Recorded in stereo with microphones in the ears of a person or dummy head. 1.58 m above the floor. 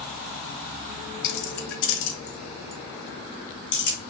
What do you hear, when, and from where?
1.2 s keys jangling: 60° left (ahead or behind), 1.0 m; by 4.0 s 50° left (ahead or behind), 2 m